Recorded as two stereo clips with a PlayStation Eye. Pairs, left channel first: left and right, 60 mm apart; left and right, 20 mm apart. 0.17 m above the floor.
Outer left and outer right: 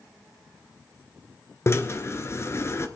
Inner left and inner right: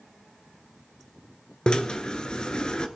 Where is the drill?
45° left (ahead or behind), 1.0 m.